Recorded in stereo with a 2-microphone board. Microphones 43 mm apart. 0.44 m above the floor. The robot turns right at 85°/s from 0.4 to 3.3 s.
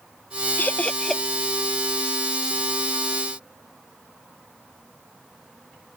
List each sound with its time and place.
0.6 s laughter: 45° left (ahead or behind); by 1.2 s 5° right (ahead or behind)